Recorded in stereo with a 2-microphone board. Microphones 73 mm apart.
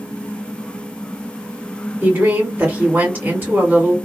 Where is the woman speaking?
30° right (ahead or behind), 2 m.